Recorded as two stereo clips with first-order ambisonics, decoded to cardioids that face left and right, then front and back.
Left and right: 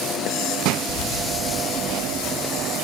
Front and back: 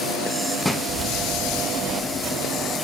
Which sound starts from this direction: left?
Keys jangling, at 0.9 s.